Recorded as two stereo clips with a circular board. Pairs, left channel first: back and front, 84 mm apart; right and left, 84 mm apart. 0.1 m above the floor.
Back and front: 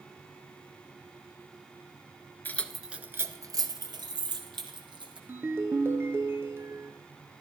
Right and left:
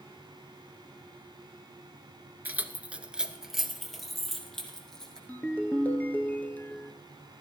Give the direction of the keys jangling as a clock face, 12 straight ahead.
7 o'clock.